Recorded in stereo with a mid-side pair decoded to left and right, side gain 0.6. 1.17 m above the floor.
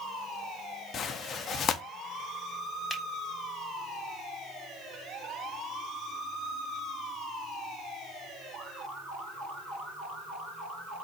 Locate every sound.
0.9 s tearing paper: 45° left, 0.8 m
2.9 s a finger snap: 10° left, 3 m